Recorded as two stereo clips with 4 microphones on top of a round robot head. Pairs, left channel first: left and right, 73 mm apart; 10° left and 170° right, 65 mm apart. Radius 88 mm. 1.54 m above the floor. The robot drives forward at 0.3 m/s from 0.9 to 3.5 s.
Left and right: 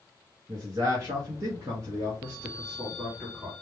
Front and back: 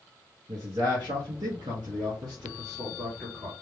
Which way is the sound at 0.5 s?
135° right.